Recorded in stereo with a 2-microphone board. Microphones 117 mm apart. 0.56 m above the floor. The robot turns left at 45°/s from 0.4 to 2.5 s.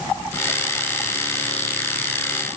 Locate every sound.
Only background noise.